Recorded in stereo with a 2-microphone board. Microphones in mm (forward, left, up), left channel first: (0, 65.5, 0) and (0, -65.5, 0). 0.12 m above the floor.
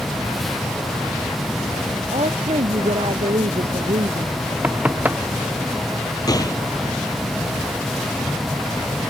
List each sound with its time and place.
2.1 s a woman speaking: 50° right (ahead or behind)
4.6 s knocking: 10° right (ahead or behind)
6.3 s a gunshot: 30° left (ahead or behind)